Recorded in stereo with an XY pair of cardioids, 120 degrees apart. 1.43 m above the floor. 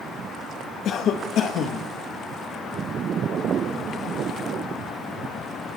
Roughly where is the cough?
Ahead left.